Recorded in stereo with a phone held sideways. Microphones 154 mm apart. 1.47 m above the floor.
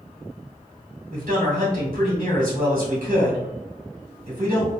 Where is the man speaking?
65° right (ahead or behind), 1.7 m.